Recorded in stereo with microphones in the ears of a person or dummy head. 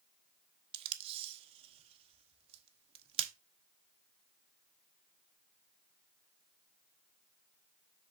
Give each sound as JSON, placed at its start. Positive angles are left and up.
{"t": 0.7, "sound": "tape being pulled", "side_deg": -30, "distance_m": 0.9}